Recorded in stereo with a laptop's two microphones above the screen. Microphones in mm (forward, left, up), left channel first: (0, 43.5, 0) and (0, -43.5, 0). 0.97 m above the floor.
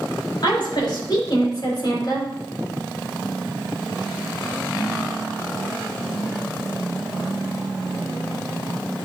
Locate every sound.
0.4 s a woman speaking: 60° left (ahead or behind), 4 m; by 2.2 s 55° left (ahead or behind), 3 m